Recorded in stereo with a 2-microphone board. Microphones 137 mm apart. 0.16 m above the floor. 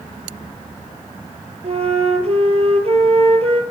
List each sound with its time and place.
1.6 s a flute: 50° right (ahead or behind), 1.3 m